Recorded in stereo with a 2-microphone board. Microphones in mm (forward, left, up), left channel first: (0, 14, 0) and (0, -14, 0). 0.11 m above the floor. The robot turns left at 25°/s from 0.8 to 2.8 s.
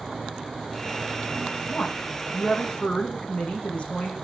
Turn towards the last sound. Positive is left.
turn(degrees=50)  # may be behind; listen again after turning